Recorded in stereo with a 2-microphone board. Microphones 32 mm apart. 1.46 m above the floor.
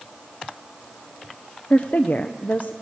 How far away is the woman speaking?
About 0.9 m.